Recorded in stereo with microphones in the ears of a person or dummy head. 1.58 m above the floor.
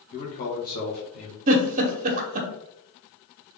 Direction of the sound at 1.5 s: 45° right (ahead or behind).